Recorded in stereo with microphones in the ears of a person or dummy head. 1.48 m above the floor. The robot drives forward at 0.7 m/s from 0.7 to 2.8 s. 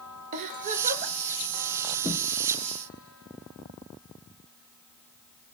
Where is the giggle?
40° right (ahead or behind), 0.7 m; by 1.1 s 50° right (ahead or behind), 0.7 m.